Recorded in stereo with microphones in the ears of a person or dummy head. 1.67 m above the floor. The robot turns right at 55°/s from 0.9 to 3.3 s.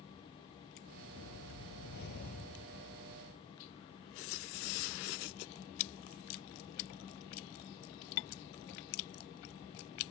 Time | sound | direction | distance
1.1 | a whoosh | 65° left | ?